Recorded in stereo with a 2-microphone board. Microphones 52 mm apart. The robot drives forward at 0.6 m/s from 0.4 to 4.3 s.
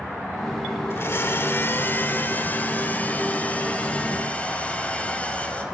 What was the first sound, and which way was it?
A blender, 50° left (ahead or behind).